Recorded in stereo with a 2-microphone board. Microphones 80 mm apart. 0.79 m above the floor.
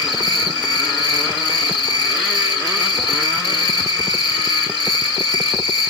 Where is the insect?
75° left (ahead or behind), 1.7 m.